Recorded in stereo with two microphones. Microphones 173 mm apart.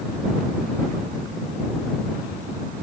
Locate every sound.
Only background noise.